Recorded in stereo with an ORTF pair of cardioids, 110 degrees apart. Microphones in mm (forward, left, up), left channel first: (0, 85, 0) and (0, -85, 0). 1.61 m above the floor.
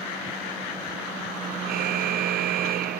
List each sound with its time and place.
1.7 s a car horn: 65° right